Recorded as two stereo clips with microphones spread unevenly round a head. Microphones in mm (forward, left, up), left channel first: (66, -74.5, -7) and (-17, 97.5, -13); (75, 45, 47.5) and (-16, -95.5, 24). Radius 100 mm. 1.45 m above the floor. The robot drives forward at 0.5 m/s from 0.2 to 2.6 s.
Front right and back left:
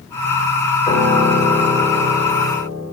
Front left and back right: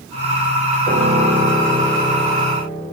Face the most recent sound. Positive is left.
turn(degrees=-145)